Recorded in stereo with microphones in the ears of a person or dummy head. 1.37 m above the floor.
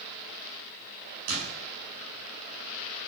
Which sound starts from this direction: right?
A door slam, at 1.3 s.